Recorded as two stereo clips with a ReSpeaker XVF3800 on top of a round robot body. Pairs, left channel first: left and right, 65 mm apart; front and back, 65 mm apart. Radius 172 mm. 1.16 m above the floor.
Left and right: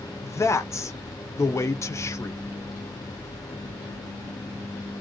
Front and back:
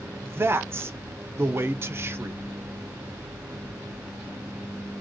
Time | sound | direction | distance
0.2 | a man speaking | 130° left | 0.6 m